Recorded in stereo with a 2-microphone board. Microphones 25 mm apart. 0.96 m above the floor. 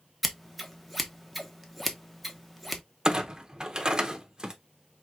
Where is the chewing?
I don't hear chewing.